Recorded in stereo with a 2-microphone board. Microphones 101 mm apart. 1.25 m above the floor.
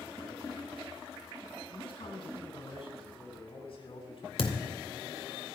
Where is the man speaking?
65° left (ahead or behind), 9 m; by 4.3 s 60° left (ahead or behind), 7.5 m.